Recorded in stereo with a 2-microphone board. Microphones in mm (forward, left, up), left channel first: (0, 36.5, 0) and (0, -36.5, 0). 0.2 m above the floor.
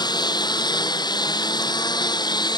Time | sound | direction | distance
0.0 | a lawn mower | 90° left | ?